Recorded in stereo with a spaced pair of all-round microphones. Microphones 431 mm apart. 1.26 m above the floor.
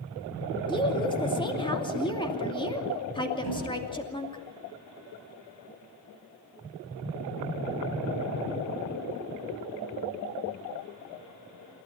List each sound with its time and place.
0.7 s a woman speaking: 10° left (ahead or behind), 2.5 m
3.4 s a thud: 65° left (ahead or behind), 9.5 m